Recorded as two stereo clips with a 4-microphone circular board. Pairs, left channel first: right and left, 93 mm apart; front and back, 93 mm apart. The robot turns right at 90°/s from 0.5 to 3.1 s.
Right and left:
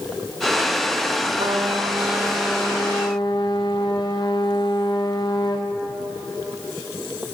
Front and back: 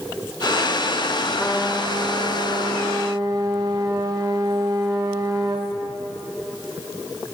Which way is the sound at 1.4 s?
75° left.